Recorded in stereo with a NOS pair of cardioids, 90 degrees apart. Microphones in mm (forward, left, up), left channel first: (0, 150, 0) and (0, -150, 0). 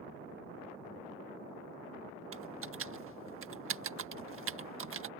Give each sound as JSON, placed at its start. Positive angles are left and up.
{"t": 2.3, "sound": "typing on a keyboard", "azimuth_deg": -45}